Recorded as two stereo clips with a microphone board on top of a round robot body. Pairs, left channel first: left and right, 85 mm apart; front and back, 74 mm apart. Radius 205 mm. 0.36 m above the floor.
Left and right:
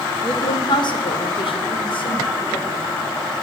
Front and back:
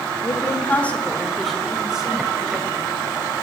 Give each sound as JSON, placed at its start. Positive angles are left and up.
{"t": 0.2, "sound": "a woman speaking", "azimuth_deg": 45, "distance_m": 1.6}